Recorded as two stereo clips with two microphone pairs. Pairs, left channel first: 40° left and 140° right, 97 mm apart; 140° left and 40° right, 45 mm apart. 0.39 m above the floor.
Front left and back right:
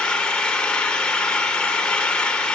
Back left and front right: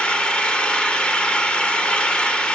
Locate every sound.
0.0 s an engine running: 115° left, 0.8 m